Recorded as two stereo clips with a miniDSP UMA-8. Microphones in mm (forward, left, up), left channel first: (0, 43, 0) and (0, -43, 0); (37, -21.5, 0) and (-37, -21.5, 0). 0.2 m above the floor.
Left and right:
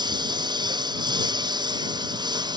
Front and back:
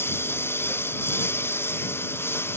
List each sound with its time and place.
0.0 s a lawn mower: 60° right